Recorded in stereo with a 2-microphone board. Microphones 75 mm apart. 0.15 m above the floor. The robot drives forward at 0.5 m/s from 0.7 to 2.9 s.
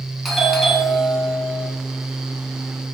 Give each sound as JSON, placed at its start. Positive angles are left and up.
{"t": 0.2, "sound": "a doorbell", "side_deg": 0, "distance_m": 1.7}